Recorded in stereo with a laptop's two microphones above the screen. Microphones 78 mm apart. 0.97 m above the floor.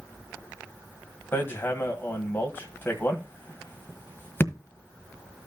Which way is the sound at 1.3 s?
25° left (ahead or behind).